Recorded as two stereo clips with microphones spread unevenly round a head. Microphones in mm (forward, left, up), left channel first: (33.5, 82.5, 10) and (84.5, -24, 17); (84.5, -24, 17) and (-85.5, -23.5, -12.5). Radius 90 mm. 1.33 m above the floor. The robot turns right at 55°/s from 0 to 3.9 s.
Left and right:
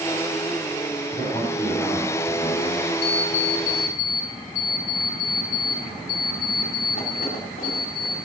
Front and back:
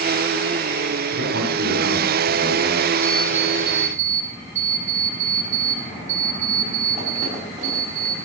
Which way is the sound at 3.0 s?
75° left.